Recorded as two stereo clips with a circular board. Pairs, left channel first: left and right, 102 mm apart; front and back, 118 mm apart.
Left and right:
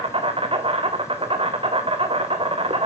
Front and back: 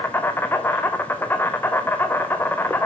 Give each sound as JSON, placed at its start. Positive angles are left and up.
{"t": 0.0, "sound": "an insect", "azimuth_deg": -70, "distance_m": 1.4}